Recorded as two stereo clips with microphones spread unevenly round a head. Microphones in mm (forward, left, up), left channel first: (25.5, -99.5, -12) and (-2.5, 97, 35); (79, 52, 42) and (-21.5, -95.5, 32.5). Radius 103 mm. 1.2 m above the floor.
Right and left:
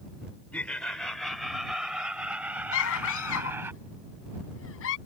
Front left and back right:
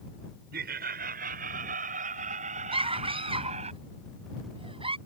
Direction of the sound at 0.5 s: 170° right.